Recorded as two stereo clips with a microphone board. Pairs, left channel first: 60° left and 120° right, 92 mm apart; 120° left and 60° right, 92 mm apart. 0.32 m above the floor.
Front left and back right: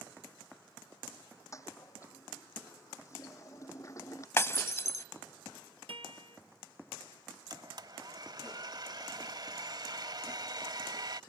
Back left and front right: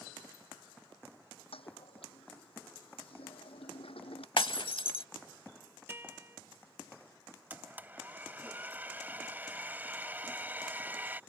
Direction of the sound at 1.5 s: 115° left.